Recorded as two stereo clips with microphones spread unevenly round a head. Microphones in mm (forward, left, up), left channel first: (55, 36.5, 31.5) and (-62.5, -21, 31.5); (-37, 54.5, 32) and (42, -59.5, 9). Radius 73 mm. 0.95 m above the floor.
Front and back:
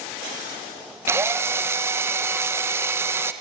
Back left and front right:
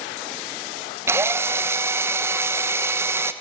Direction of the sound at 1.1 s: 100° right.